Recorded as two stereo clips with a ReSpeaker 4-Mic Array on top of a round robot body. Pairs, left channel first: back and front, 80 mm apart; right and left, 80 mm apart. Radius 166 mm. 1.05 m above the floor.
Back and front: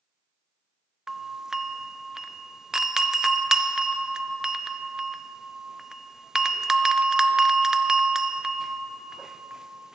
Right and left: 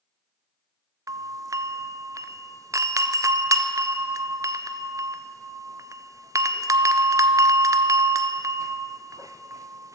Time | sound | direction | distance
1.1 | a doorbell | 80° left | 0.6 m